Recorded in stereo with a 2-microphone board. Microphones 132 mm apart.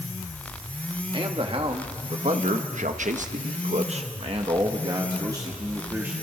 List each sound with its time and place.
1.1 s a man speaking: 40° right (ahead or behind), 1.8 m; by 6.1 s 20° right (ahead or behind), 2 m